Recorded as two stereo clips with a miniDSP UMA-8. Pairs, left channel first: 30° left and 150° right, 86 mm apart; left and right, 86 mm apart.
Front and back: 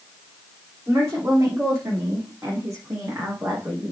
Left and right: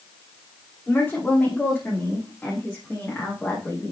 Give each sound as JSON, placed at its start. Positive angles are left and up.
{"t": 0.9, "sound": "a woman speaking", "azimuth_deg": 165, "distance_m": 8.5}